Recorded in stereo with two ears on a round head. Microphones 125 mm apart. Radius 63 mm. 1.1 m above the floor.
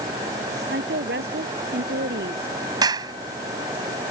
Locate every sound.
0.7 s a woman speaking: 90° right
2.8 s a clap: 30° right (ahead or behind)